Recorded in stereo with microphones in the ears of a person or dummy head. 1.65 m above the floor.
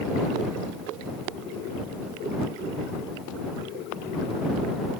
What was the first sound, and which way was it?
Only background noise.